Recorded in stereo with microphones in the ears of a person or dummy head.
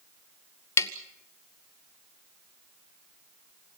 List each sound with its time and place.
0.8 s tapping: 25° left (ahead or behind), 1.2 m